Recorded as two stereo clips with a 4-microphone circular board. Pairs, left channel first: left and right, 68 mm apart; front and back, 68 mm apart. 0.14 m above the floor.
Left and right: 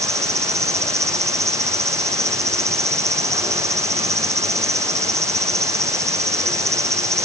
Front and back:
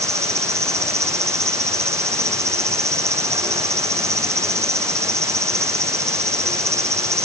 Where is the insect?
135° right.